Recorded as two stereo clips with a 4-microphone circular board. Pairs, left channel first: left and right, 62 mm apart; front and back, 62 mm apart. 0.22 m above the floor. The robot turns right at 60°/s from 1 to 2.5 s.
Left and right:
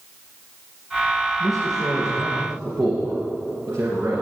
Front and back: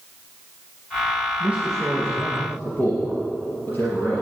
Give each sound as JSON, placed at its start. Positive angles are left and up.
{"t": 1.4, "sound": "a man speaking", "azimuth_deg": -120, "distance_m": 4.0}